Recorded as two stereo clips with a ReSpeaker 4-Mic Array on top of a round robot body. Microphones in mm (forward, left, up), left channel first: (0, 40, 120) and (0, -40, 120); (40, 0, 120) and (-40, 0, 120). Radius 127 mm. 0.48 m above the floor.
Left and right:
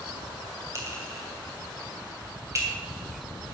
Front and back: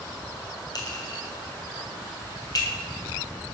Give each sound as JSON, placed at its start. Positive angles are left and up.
{"t": 0.8, "sound": "a clink", "azimuth_deg": -35, "distance_m": 3.0}